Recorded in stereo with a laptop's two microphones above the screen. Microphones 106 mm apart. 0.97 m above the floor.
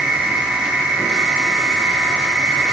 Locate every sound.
0.0 s a machine running: 5° right (ahead or behind), 7.5 m